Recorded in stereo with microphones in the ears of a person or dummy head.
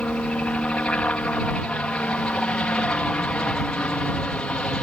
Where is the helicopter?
10° left (ahead or behind).